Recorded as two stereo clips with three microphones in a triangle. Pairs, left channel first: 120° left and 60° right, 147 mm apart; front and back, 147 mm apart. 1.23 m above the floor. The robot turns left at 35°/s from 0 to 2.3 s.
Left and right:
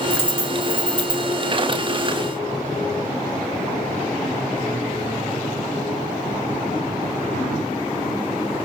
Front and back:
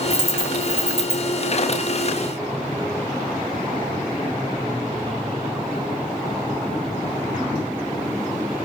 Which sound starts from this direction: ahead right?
A dropped coin, at 0.1 s.